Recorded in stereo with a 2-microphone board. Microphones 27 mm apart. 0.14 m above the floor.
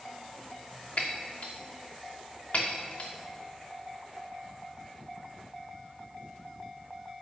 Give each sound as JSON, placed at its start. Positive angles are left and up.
{"t": 1.0, "sound": "breaking glass", "side_deg": 60, "distance_m": 1.4}